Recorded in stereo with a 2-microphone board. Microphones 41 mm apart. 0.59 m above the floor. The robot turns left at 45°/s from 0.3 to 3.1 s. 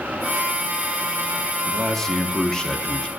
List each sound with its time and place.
1.7 s a man speaking: 10° left (ahead or behind), 0.8 m; by 3.1 s 20° left (ahead or behind), 0.8 m